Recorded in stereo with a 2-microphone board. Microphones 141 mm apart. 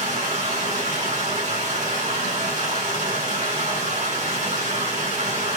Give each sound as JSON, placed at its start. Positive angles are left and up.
{"t": 0.0, "sound": "running water", "side_deg": -60, "distance_m": 2.0}